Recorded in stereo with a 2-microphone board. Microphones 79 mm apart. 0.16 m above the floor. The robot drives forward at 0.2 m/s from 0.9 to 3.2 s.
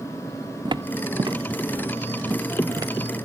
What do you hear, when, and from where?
0.7 s footsteps: 80° right, 0.6 m; by 2.9 s 45° right (ahead or behind), 1.8 m